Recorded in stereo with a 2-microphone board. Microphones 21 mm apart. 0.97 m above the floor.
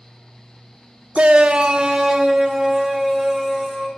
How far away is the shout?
About 0.6 m.